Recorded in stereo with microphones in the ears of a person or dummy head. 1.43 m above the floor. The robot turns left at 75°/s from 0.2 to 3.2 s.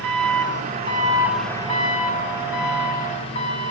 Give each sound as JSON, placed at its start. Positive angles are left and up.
{"t": 0.0, "sound": "an engine running", "azimuth_deg": -90, "distance_m": 2.5}